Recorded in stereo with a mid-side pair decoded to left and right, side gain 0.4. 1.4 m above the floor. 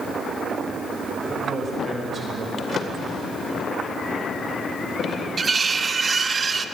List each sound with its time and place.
1.2 s a man speaking: 40° right, 7.5 m
2.6 s a drawer: 60° left, 2.5 m
5.4 s cutlery clinking: 40° right, 1.4 m